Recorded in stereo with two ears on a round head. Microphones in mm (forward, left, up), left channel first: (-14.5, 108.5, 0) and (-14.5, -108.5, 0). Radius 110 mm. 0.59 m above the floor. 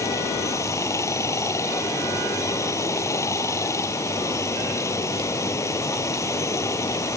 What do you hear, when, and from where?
0.0 s running water: 15° left (ahead or behind)